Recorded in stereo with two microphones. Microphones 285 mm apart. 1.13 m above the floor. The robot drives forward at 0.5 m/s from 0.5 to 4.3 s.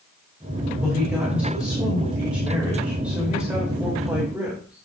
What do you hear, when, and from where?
0.8 s a woman speaking: 5° right (ahead or behind), 6 m